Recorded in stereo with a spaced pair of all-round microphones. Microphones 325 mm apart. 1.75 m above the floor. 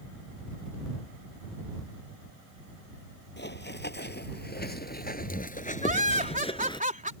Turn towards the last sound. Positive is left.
turn(degrees=-25)  # may be behind; listen again after turning